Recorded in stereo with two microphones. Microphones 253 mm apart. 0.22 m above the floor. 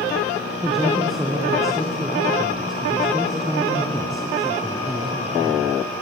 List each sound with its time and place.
0.6 s a man speaking: centre (ahead or behind), 2.5 m